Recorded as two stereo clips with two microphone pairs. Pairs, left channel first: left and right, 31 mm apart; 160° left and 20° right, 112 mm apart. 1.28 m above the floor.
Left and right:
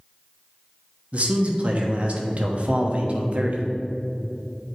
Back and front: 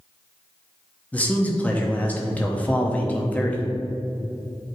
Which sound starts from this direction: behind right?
A man speaking, at 1.1 s.